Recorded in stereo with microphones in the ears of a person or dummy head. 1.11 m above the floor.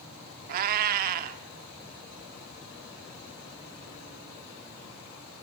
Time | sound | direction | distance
0.5 | a cat meowing | 50° right (ahead or behind) | 1.2 m